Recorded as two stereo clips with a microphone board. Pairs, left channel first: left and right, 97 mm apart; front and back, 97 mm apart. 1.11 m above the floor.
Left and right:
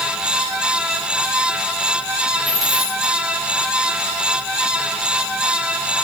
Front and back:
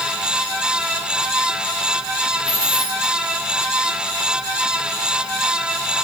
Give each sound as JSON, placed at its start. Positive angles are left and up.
{"t": 2.5, "sound": "a dropped coin", "azimuth_deg": -175, "distance_m": 9.0}